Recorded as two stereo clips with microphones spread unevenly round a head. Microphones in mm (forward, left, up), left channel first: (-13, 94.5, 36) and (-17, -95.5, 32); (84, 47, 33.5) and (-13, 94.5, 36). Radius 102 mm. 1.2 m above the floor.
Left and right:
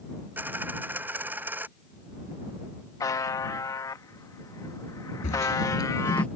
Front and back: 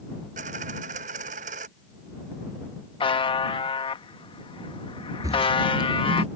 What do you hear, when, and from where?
0.4 s a dropped coin: 170° right
3.0 s a buzzer: 15° left
5.2 s footsteps: 115° left; by 6.3 s 170° left